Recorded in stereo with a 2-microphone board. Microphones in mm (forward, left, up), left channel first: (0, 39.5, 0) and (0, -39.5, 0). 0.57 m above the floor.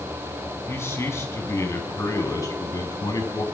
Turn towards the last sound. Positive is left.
turn(degrees=50)  # may be behind; listen again after turning